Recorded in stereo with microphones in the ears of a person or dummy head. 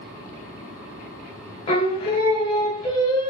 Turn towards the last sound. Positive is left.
turn(degrees=25)  # may be behind; listen again after turning